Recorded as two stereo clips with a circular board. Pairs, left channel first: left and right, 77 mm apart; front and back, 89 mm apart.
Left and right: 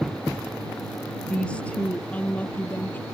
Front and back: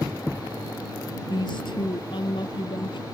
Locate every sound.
1.3 s a woman speaking: 15° left; by 3.0 s 25° left